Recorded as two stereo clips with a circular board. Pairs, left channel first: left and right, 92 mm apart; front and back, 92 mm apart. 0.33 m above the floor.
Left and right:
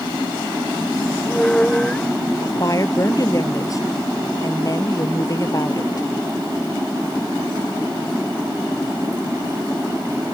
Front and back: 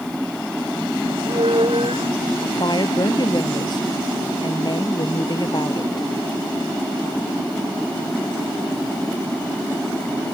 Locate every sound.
1.1 s a squeak: 170° left
2.4 s a woman speaking: 40° left